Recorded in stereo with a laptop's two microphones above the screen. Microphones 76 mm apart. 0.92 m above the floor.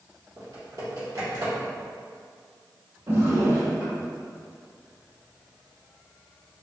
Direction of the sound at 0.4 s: 50° right (ahead or behind).